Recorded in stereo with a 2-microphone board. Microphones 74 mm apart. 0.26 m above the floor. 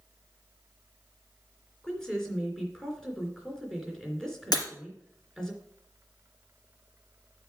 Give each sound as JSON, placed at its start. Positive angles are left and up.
{"t": 1.8, "sound": "a woman speaking", "side_deg": 5, "distance_m": 3.0}
{"t": 4.5, "sound": "breaking glass", "side_deg": 75, "distance_m": 3.0}